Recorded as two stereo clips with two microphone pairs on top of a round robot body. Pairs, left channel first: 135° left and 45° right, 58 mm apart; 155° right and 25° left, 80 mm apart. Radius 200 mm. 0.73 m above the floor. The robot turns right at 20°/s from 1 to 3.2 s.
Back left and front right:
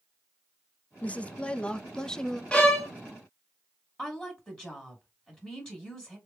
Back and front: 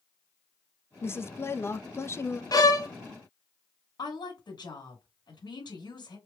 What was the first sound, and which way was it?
A woman speaking, 175° right.